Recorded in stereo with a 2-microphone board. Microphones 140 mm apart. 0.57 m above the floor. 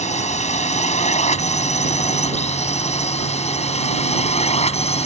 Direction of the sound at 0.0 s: 55° left (ahead or behind).